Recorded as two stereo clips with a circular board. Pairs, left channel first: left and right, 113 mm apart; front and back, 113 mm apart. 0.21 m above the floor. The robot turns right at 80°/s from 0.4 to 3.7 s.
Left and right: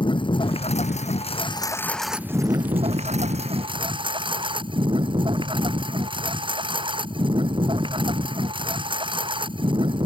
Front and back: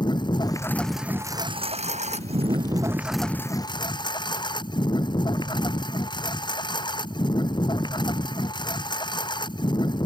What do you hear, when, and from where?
0.0 s a lawn mower: 50° left; by 10.1 s 50° right